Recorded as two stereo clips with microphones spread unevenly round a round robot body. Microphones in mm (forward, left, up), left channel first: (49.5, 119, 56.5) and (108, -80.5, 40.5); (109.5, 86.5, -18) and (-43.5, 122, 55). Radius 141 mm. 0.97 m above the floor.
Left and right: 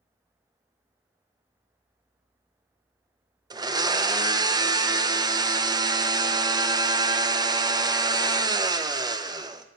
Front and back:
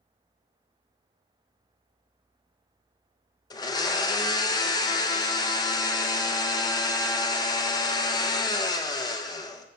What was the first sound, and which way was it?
A blender, 10° right.